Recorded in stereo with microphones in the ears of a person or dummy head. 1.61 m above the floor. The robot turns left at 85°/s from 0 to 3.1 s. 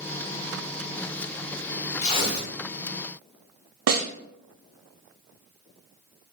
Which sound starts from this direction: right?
A snare drum, at 3.9 s.